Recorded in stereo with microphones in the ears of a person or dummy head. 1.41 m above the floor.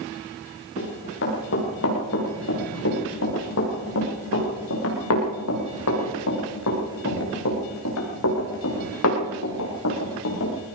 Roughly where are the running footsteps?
Left.